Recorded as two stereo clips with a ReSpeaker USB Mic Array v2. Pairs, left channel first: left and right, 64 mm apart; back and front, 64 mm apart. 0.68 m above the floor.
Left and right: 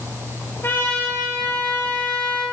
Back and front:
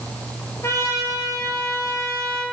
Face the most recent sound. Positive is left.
turn(degrees=140)